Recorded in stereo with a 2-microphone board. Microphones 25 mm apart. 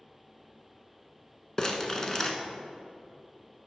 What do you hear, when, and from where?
1.6 s crumpling: 20° left (ahead or behind), 0.8 m